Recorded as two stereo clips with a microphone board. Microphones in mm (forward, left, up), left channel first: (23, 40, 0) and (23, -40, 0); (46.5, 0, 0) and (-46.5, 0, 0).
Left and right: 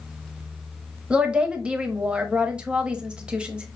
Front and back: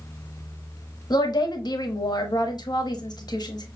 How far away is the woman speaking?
About 1.0 m.